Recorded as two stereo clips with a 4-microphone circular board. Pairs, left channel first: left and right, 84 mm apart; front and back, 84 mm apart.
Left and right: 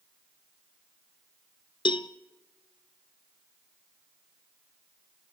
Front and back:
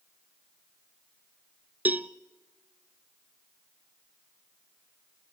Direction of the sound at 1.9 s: 110° left.